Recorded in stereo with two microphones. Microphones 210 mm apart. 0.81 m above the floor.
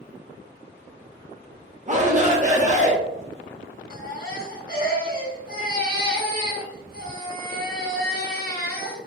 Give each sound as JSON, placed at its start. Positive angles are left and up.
{"t": 1.9, "sound": "a shout", "side_deg": -35, "distance_m": 0.9}
{"t": 3.9, "sound": "a baby crying", "side_deg": 45, "distance_m": 1.0}